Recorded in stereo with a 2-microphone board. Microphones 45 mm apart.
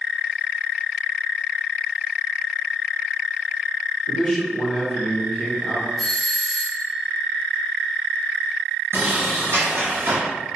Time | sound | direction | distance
4.1 | a man speaking | 5° left (ahead or behind) | 1.0 m
6.0 | a doorbell | centre (ahead or behind) | 1.2 m
8.9 | a sliding door | 80° right | 1.7 m